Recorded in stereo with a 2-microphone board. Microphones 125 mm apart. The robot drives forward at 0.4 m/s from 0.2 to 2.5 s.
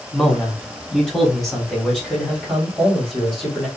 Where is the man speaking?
5° left (ahead or behind), 1.3 m; by 3.7 s centre (ahead or behind), 1.9 m.